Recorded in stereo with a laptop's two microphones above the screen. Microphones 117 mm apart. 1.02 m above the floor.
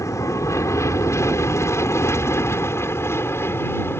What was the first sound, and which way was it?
An aircraft, 25° left (ahead or behind).